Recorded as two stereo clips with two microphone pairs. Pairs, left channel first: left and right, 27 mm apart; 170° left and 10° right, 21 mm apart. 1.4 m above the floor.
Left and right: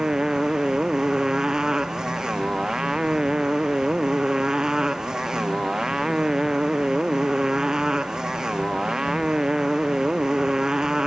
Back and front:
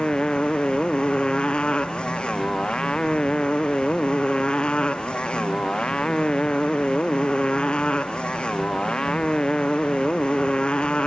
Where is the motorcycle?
155° right.